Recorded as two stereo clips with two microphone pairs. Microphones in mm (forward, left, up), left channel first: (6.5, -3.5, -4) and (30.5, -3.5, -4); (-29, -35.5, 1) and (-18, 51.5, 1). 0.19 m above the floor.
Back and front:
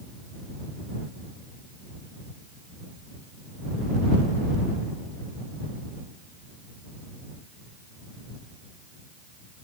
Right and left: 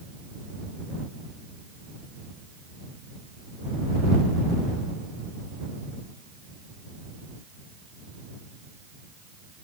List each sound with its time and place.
Only background noise.